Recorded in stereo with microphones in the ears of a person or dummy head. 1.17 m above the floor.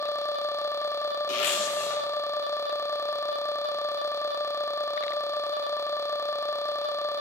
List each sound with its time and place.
1.3 s a zipper: 80° left, 3.5 m